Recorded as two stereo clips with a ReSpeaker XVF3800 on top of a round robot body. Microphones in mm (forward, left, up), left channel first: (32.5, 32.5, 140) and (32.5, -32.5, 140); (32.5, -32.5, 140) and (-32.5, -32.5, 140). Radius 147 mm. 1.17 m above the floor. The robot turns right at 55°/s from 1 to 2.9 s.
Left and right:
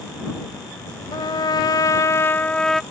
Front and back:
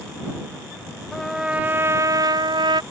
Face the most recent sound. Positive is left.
turn(degrees=-175)